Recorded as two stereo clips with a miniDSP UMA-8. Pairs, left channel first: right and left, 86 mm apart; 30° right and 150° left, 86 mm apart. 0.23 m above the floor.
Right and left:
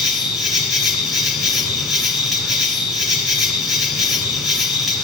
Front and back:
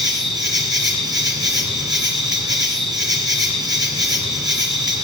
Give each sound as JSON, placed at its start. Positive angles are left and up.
{"t": 0.0, "sound": "an insect", "azimuth_deg": 180, "distance_m": 2.0}